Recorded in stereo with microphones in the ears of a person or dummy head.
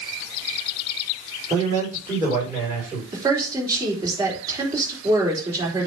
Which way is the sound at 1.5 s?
20° right (ahead or behind).